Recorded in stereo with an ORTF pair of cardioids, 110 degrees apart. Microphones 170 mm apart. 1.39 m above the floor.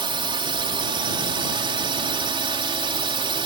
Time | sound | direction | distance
0.0 | a drone | 30° right | ?